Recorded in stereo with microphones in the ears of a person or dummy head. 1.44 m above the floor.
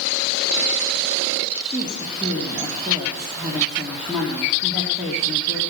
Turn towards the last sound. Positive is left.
turn(degrees=-5)  # may be behind; listen again after turning